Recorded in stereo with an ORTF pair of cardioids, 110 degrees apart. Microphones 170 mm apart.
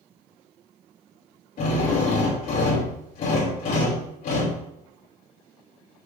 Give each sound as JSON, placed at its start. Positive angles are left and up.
{"t": 1.6, "sound": "a drill", "azimuth_deg": 60, "distance_m": 5.0}